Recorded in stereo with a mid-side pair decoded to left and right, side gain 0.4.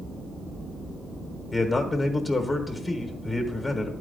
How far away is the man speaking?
About 1.3 m.